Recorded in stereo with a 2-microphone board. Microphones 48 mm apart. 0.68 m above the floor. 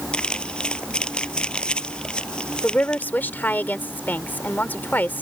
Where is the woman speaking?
45° left (ahead or behind).